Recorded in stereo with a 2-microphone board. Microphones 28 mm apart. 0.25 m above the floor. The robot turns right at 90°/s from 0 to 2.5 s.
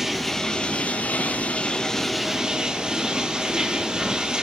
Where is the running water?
10° right, 1.9 m; by 4.4 s 145° right, 1.9 m.